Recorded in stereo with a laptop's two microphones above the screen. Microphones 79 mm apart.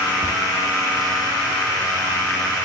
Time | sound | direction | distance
0.2 | tapping | 75° left (ahead or behind) | 4 m